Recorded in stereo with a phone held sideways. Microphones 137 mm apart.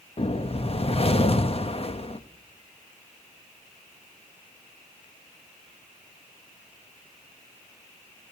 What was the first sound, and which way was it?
A whoosh, 45° left (ahead or behind).